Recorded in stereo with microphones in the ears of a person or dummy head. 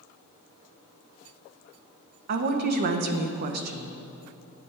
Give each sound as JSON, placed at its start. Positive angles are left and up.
{"t": 2.3, "sound": "a woman speaking", "side_deg": -50, "distance_m": 0.7}